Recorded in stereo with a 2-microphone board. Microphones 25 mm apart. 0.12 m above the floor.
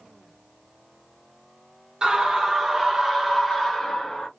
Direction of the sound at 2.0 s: 30° right (ahead or behind).